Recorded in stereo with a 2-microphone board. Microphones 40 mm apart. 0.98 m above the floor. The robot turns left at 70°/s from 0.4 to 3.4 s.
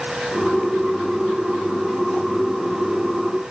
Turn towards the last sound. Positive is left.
No sound to turn to.